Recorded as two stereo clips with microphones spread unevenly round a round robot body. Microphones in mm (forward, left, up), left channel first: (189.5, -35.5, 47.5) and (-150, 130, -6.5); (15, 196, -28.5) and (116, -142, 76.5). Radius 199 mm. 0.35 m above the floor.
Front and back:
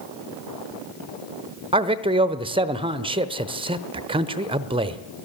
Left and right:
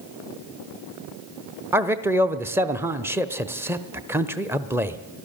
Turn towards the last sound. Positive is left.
turn(degrees=170)